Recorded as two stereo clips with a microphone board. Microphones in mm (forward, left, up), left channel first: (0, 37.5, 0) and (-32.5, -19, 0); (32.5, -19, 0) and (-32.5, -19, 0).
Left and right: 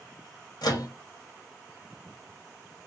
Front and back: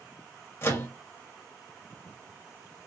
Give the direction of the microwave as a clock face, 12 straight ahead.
10 o'clock.